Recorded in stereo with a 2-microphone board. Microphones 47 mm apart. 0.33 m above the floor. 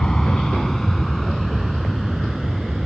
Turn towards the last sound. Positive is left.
turn(degrees=0)  # may be behind; listen again after turning